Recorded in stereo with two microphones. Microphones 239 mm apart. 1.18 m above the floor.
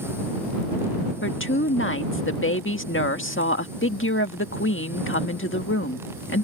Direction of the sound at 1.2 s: 60° left (ahead or behind).